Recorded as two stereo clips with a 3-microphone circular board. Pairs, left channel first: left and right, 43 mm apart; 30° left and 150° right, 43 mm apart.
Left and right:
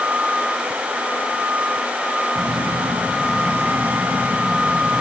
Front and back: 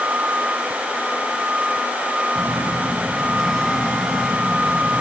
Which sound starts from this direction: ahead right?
A phone buzzing, at 2.4 s.